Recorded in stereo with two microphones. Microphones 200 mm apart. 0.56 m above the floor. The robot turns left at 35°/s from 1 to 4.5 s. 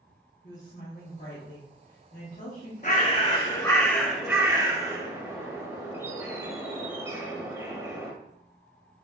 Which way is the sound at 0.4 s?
115° left.